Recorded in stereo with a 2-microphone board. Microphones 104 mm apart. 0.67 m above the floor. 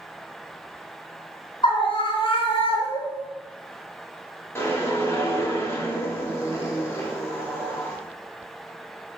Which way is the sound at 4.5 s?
25° left (ahead or behind).